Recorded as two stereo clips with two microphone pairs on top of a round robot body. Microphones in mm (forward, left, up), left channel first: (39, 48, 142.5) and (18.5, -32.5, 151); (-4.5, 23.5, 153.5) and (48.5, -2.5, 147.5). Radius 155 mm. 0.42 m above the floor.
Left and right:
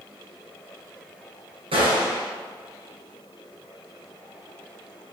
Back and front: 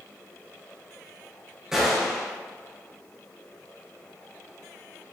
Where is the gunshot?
110° right, 2.0 m.